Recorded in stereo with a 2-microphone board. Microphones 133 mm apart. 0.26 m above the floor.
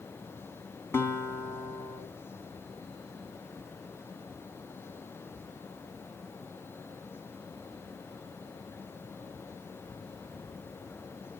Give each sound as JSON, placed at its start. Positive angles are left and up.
{"t": 0.9, "sound": "a guitar", "side_deg": 20, "distance_m": 2.5}